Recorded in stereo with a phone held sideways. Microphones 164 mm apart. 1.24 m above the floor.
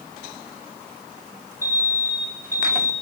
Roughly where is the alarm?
Right.